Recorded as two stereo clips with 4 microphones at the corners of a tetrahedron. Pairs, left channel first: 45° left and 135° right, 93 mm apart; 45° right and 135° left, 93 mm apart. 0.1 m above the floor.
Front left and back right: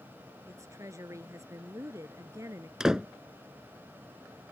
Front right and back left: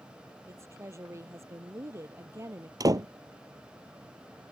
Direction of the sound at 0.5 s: 175° right.